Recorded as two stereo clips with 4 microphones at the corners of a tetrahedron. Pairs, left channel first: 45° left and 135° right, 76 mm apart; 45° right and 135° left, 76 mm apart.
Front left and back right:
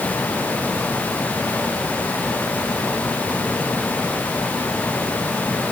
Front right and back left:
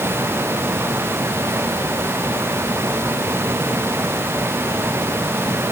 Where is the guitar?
I don't hear a guitar.